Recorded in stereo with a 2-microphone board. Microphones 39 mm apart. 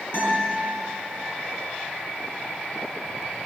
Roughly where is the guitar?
Left.